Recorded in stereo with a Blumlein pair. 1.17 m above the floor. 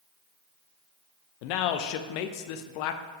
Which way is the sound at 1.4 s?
45° left.